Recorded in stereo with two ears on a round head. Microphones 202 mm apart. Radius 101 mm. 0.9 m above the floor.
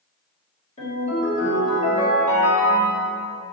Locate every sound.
0.8 s a ringtone: 30° left (ahead or behind), 1.3 m